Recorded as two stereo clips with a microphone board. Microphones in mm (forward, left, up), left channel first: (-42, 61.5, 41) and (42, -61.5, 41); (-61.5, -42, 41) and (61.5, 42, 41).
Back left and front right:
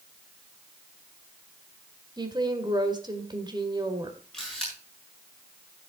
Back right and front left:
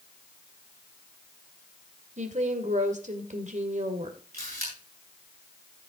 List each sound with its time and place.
2.2 s a woman speaking: 5° left, 2.0 m
4.3 s a camera shutter: 40° left, 8 m